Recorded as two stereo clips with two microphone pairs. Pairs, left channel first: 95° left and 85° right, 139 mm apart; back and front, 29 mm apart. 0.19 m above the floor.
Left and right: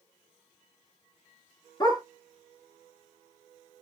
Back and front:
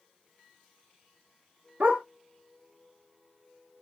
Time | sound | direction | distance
1.8 | a dog barking | 35° left | 1.6 m